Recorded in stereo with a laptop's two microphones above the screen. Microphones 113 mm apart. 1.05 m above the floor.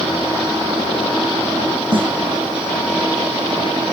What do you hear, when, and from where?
1.9 s a snare drum: 50° right (ahead or behind), 1.0 m